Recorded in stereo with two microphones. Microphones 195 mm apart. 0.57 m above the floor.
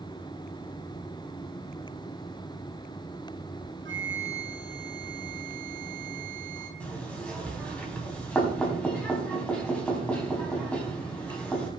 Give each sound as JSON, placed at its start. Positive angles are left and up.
{"t": 3.9, "sound": "a flute", "side_deg": -75, "distance_m": 3.5}
{"t": 6.8, "sound": "knocking", "side_deg": 5, "distance_m": 4.0}